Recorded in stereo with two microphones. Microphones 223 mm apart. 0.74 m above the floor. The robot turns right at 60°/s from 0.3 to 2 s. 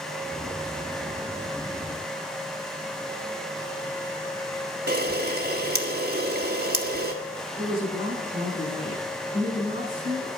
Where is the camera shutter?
50° right (ahead or behind), 1.5 m.